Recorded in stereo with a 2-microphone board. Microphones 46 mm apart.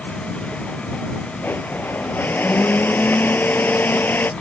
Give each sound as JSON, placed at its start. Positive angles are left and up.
{"t": 1.4, "sound": "a blender", "side_deg": 45}